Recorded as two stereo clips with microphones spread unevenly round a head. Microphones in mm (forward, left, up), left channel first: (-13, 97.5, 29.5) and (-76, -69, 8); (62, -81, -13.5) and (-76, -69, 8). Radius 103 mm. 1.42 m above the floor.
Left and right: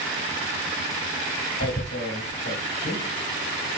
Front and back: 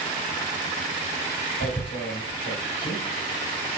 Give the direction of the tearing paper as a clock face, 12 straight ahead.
11 o'clock.